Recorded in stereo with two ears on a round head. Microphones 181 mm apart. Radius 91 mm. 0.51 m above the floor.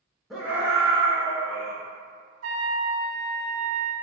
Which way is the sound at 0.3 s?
Centre (ahead or behind).